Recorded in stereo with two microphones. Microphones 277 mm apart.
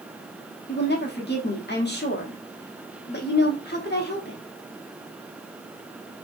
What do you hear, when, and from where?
0.7 s a woman speaking: 40° left (ahead or behind), 1.1 m